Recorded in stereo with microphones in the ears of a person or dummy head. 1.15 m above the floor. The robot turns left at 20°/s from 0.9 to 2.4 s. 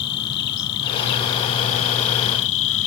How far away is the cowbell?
I don't hear a cowbell.